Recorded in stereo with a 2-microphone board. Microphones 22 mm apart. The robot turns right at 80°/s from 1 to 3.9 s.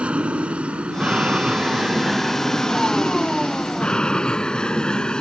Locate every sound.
0.0 s an aircraft: 100° right; by 5.2 s 135° left